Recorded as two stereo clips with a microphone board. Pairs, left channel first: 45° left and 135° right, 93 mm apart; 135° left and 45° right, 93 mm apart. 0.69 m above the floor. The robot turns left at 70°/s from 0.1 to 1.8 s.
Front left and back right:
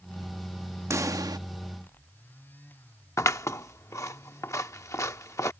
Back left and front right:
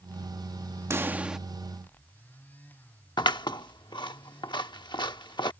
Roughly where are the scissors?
Left.